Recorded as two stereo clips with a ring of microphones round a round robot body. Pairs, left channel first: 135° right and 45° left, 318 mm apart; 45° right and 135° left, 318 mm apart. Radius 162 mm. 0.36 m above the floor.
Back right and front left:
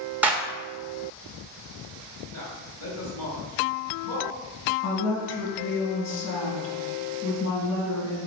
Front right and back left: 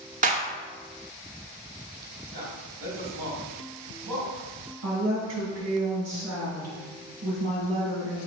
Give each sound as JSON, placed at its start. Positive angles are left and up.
{"t": 0.2, "sound": "a clap", "azimuth_deg": 125, "distance_m": 1.1}
{"t": 2.3, "sound": "a man speaking", "azimuth_deg": -170, "distance_m": 2.5}
{"t": 4.8, "sound": "a woman speaking", "azimuth_deg": 180, "distance_m": 3.0}